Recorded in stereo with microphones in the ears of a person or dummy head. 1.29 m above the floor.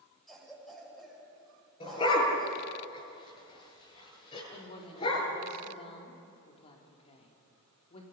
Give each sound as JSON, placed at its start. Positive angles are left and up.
{"t": 0.3, "sound": "a cough", "side_deg": 0, "distance_m": 7.5}
{"t": 1.8, "sound": "a dog barking", "side_deg": 25, "distance_m": 9.0}
{"t": 4.5, "sound": "a woman speaking", "side_deg": 40, "distance_m": 4.0}